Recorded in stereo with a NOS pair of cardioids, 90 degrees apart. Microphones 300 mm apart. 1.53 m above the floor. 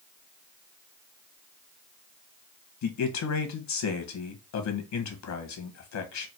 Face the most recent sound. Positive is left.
turn(degrees=65)